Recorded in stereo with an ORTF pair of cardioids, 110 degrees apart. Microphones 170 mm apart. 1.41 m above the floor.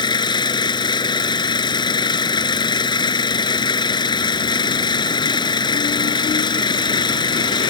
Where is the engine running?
30° left.